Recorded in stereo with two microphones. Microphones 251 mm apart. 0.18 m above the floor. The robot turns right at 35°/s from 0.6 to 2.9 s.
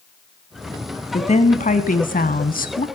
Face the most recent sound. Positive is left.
turn(degrees=110)